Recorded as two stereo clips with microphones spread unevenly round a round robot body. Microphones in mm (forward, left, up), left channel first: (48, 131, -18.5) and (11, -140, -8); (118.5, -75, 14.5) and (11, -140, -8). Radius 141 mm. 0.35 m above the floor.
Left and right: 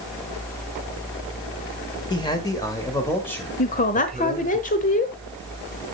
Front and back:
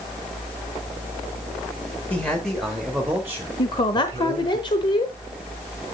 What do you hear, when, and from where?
2.1 s a man speaking: 120° left, 1.5 m; by 4.6 s 170° left, 2 m
3.6 s a woman speaking: 70° left, 0.9 m